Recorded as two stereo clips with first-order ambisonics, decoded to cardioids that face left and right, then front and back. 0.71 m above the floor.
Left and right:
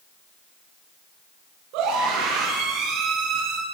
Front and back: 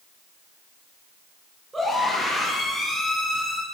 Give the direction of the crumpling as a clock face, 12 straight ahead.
I don't hear crumpling.